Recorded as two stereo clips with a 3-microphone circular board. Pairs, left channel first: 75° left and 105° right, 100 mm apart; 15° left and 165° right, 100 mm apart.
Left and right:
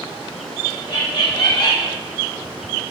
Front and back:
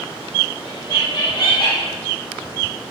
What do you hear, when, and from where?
0.7 s laughter: 55° left, 5 m